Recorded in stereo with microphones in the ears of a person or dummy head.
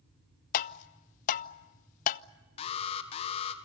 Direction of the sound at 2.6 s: 35° left (ahead or behind).